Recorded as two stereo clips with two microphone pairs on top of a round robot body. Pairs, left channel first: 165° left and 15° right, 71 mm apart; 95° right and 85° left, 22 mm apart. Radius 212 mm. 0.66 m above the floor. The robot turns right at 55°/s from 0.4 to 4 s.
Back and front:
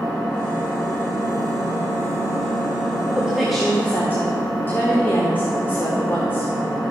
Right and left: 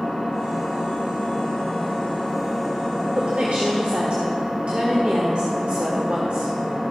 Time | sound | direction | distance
0.0 | an engine running | 120° right | 3.5 m
3.1 | a woman speaking | 50° left | 1.6 m